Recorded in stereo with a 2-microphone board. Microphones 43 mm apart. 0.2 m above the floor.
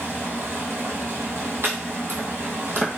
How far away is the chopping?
About 1.3 m.